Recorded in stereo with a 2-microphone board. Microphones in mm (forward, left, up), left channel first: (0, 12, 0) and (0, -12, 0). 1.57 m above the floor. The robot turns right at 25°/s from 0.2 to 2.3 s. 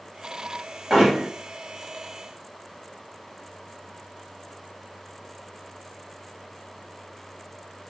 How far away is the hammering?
About 1.5 m.